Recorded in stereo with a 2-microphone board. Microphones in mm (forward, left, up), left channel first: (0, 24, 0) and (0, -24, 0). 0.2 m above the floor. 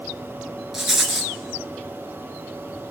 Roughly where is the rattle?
Centre.